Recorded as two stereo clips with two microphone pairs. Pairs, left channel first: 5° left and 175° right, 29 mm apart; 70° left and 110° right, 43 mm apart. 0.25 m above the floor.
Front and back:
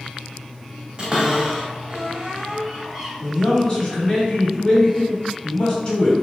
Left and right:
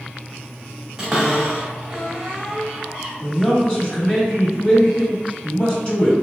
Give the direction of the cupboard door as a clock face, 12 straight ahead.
6 o'clock.